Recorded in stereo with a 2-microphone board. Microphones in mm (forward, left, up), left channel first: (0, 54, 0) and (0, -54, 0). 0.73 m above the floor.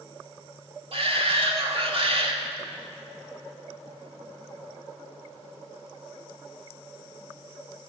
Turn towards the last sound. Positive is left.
turn(degrees=-60)  # may be behind; listen again after turning